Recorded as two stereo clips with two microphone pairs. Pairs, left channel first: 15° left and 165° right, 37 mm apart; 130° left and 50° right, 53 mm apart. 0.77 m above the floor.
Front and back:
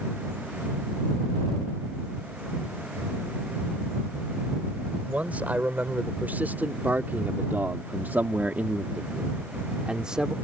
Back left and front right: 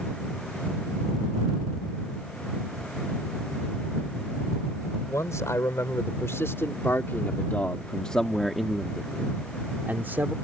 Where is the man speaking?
150° left; by 10.3 s 95° right.